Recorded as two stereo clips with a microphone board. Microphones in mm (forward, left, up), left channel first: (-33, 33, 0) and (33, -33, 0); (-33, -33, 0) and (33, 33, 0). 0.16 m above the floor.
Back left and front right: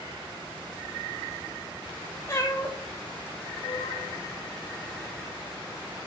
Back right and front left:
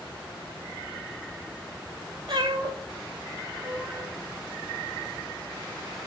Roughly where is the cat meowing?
Left.